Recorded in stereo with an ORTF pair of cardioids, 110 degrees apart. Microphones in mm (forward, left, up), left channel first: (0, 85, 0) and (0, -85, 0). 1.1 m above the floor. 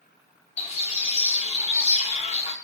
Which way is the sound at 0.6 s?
40° left.